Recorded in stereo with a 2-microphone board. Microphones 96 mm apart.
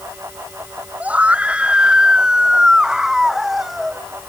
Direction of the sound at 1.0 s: 15° right (ahead or behind).